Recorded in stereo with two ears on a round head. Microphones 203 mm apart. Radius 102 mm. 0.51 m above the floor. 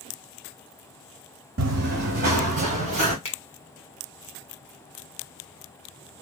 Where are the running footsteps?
60° right (ahead or behind), 1.3 m; by 3.1 s 30° right (ahead or behind), 2.5 m.